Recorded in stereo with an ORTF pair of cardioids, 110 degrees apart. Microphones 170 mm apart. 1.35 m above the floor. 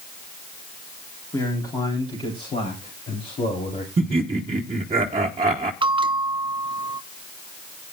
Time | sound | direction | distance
1.3 | a man speaking | 20° left | 3.5 m
4.0 | laughter | 35° right | 1.1 m
5.8 | a bell | 30° right | 0.7 m